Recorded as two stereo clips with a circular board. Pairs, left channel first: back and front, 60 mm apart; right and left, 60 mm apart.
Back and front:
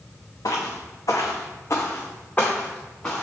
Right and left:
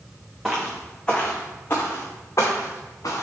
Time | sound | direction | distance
0.5 | footsteps | 175° left | 1.0 m